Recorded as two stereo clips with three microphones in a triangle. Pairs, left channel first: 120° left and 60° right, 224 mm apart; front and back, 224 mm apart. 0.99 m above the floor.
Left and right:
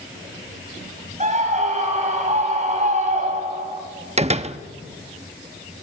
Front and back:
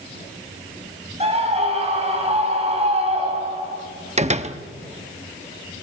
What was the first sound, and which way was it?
A scream, 120° right.